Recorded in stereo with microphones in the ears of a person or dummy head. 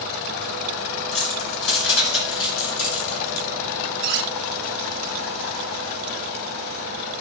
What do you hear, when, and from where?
1.1 s keys jangling: 80° left, 6 m; by 3.5 s 70° left (ahead or behind), 4.5 m
4.0 s cutlery clinking: 55° right (ahead or behind), 1.6 m